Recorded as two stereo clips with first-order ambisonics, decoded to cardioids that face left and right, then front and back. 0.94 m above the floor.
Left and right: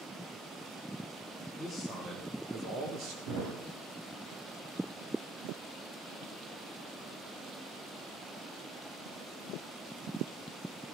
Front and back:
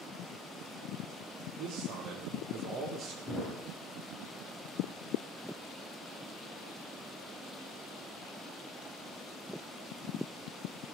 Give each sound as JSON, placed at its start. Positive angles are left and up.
{"t": 1.6, "sound": "a man speaking", "azimuth_deg": -175, "distance_m": 1.7}
{"t": 3.3, "sound": "a thud", "azimuth_deg": -105, "distance_m": 5.0}